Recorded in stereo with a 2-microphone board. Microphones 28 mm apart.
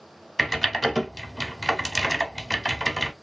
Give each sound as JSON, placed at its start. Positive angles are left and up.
{"t": 0.4, "sound": "typing on a keyboard", "side_deg": 5, "distance_m": 0.8}